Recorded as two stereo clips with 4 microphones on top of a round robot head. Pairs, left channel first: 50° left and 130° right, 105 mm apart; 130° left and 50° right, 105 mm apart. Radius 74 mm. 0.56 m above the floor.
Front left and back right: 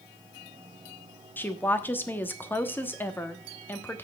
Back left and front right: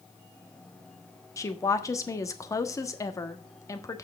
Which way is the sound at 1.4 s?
105° left.